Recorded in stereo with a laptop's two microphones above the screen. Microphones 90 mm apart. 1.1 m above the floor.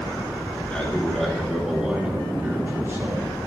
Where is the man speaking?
15° left (ahead or behind), 3 m; by 3.3 s 35° right (ahead or behind), 3.5 m.